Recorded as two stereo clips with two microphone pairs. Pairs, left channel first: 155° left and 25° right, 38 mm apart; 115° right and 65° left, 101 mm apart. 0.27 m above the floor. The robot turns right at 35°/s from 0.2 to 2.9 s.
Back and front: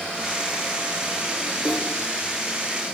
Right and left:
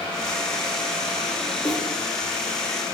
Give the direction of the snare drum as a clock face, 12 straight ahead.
2 o'clock.